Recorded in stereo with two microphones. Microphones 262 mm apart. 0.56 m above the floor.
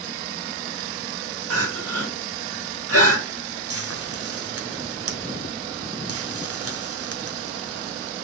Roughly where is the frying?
Right.